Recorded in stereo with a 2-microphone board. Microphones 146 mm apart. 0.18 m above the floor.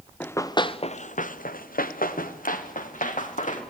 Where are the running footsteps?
15° left (ahead or behind), 1.6 m; by 3.6 s 65° left (ahead or behind), 4.5 m.